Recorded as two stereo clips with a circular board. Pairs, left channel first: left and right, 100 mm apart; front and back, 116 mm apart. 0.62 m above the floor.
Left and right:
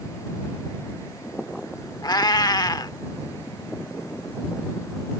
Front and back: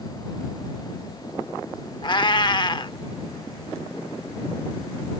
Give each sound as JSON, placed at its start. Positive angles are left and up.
{"t": 2.0, "sound": "a cat meowing", "azimuth_deg": 45}